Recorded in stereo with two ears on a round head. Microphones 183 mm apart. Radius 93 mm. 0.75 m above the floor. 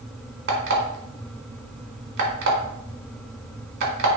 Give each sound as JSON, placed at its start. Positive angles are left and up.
{"t": 0.5, "sound": "an alarm clock", "side_deg": -55, "distance_m": 1.3}